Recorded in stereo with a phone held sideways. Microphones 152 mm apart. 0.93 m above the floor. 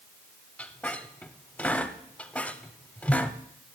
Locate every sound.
0.6 s a squeak: 5° left (ahead or behind), 0.7 m